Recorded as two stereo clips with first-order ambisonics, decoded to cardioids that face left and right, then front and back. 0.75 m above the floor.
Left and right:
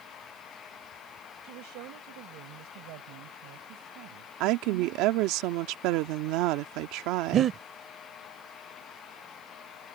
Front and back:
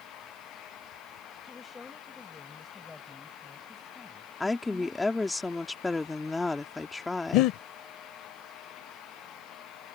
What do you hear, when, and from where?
1.4 s a woman speaking: 75° right; by 5.4 s 80° right
4.4 s a woman speaking: 80° right
7.3 s breathing: 30° right